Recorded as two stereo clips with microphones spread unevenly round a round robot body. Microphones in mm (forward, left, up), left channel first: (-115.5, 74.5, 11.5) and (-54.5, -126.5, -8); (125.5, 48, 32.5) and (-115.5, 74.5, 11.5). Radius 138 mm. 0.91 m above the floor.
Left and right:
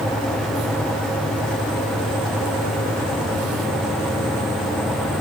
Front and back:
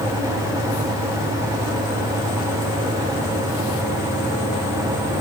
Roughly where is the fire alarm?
I don't hear a fire alarm.